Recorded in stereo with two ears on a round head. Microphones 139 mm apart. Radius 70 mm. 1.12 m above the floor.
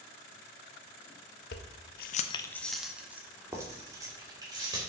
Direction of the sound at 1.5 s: 70° left (ahead or behind).